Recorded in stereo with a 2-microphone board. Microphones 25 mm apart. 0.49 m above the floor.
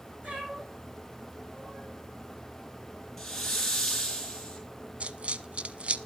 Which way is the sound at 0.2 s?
65° right (ahead or behind).